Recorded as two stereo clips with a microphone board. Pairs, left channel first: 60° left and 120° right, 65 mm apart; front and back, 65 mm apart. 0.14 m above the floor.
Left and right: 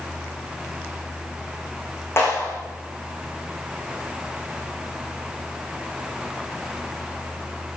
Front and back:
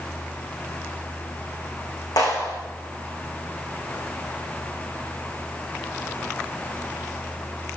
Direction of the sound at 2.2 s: 10° left.